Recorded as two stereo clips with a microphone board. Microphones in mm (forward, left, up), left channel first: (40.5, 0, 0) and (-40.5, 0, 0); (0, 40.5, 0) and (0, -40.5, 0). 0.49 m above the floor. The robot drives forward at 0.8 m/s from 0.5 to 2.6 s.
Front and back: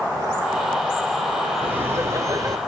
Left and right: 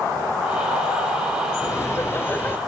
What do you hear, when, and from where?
1.6 s laughter: 120° left, 1.0 m; by 2.6 s 150° left, 1.5 m